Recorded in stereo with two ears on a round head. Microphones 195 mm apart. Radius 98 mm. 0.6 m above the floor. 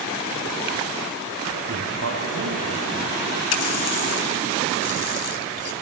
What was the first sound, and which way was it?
A man speaking, 60° right (ahead or behind).